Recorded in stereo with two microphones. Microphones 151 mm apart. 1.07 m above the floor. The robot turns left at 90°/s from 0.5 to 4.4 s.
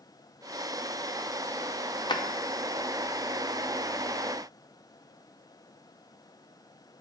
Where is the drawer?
30° left (ahead or behind), 0.5 m; by 2.2 s 20° left (ahead or behind), 0.5 m.